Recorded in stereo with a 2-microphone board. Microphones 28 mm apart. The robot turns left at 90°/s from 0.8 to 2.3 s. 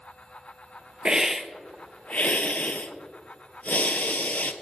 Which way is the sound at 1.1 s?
145° right.